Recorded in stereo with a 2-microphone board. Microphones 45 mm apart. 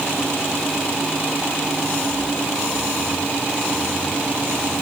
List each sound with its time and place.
Only background noise.